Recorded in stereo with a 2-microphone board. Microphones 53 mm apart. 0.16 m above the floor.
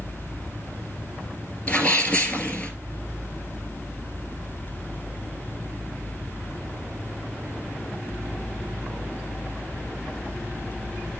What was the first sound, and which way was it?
A sneeze, 30° left (ahead or behind).